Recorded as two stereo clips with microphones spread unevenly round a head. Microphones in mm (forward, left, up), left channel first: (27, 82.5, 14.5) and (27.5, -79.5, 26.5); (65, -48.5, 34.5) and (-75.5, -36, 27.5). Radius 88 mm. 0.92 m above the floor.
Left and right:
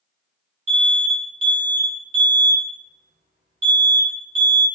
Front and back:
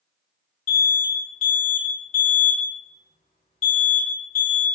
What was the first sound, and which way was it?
An alarm, 50° right.